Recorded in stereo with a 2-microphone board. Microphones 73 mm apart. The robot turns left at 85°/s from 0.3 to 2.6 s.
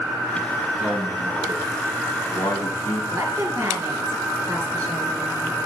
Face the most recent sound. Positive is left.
turn(degrees=-50)  # may be behind; listen again after turning